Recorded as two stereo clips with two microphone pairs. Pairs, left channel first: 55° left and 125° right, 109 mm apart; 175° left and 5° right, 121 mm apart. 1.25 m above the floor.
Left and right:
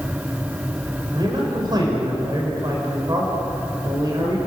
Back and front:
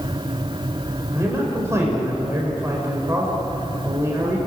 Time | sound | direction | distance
1.1 | a man speaking | 75° right | 4.5 m